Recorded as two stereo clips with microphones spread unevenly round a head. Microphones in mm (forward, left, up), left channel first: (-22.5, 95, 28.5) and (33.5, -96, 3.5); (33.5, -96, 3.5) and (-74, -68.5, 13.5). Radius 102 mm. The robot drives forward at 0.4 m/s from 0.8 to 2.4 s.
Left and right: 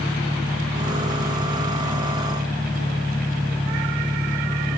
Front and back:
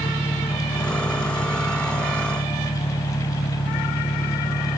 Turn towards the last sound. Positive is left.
turn(degrees=20)